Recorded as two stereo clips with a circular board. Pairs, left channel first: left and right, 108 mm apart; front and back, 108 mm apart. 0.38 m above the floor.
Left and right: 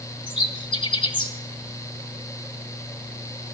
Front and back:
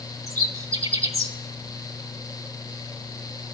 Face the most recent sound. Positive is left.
turn(degrees=120)